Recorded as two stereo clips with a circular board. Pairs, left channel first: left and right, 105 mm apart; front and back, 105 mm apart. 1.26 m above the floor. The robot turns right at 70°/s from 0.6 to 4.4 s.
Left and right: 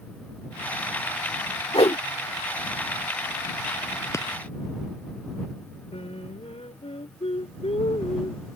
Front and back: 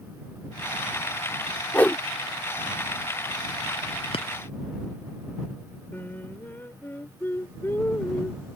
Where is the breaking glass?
25° left; by 4.3 s 35° left.